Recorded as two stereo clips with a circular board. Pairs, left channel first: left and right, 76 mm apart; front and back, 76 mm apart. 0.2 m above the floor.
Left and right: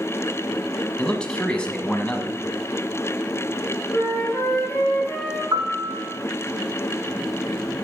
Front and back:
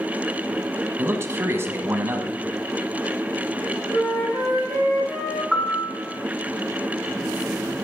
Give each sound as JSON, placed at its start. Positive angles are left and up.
{"t": 1.0, "sound": "a man speaking", "azimuth_deg": 155, "distance_m": 1.2}
{"t": 3.9, "sound": "a flute", "azimuth_deg": 15, "distance_m": 4.0}
{"t": 5.5, "sound": "a piano", "azimuth_deg": -90, "distance_m": 1.6}